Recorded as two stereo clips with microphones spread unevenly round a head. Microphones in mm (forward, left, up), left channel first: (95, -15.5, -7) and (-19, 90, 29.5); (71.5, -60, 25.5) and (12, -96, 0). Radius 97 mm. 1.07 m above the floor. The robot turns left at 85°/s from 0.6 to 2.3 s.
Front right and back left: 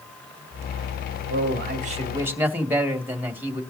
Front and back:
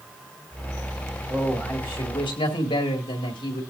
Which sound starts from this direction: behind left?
A man speaking, at 1.3 s.